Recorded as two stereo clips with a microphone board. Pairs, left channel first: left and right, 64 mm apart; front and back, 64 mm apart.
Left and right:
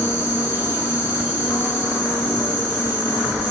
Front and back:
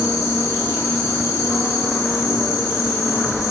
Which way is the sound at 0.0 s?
45° left.